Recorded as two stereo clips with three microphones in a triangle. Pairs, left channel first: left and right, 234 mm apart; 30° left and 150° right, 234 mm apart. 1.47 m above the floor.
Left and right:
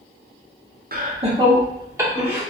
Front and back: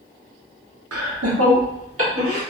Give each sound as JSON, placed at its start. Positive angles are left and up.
{"t": 0.9, "sound": "laughter", "azimuth_deg": -145, "distance_m": 0.6}